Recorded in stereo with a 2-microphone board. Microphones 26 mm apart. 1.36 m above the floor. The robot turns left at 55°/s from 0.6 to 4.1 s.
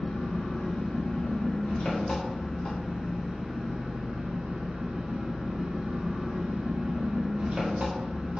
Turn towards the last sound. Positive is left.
turn(degrees=-60)